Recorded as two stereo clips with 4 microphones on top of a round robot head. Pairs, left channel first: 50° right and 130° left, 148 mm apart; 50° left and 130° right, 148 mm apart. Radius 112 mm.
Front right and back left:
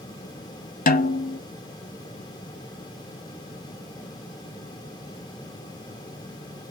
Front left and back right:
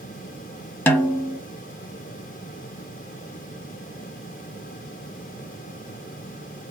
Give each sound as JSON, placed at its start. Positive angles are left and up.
{"t": 0.9, "sound": "a snare drum", "azimuth_deg": -30, "distance_m": 0.8}